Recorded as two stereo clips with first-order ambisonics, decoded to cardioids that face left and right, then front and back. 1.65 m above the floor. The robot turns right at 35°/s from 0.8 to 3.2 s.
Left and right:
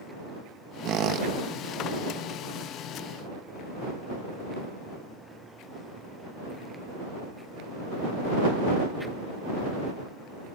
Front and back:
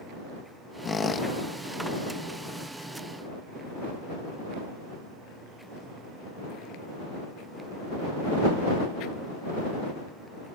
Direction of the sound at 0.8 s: 70° right.